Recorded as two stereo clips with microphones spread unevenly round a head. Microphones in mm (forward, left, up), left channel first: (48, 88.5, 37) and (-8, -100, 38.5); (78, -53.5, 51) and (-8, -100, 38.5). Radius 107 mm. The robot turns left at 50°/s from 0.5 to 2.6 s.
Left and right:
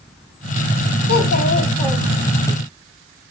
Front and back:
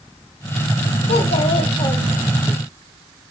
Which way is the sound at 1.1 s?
40° left.